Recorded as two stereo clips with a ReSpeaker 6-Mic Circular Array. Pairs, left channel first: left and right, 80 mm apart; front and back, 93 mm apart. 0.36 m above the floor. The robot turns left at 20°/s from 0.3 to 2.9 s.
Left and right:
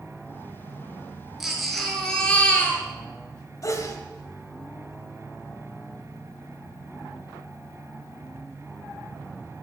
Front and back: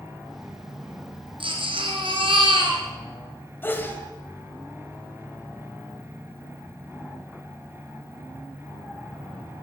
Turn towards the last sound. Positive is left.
turn(degrees=60)